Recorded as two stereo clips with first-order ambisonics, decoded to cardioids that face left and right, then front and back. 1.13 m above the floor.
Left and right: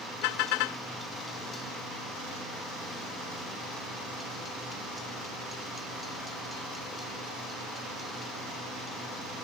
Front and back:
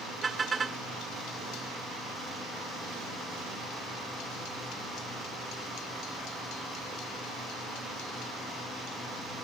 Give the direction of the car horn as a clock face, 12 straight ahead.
8 o'clock.